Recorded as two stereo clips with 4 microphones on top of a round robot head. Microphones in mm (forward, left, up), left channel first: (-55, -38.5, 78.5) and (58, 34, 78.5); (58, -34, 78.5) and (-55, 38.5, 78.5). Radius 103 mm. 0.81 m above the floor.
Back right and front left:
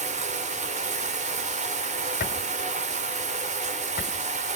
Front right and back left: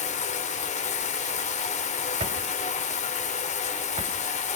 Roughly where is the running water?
Ahead.